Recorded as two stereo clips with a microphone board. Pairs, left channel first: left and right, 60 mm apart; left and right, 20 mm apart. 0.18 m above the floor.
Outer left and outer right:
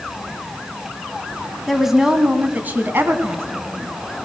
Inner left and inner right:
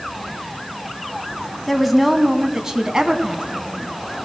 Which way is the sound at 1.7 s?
Centre (ahead or behind).